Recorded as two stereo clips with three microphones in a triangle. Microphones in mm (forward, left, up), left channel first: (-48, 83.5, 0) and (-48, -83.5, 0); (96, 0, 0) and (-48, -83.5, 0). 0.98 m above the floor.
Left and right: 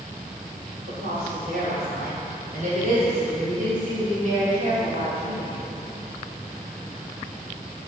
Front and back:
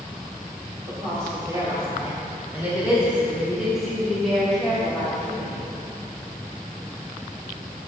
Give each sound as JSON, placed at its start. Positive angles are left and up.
{"t": 0.9, "sound": "a woman speaking", "azimuth_deg": -85, "distance_m": 3.5}